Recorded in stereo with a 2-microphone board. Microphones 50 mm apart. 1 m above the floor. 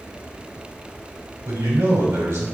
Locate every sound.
1.4 s a man speaking: 75° right (ahead or behind), 3 m